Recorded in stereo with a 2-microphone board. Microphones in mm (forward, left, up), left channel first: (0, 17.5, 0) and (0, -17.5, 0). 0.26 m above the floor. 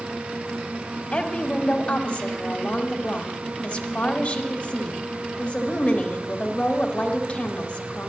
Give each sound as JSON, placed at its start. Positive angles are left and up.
{"t": 1.1, "sound": "a woman speaking", "side_deg": 30, "distance_m": 1.1}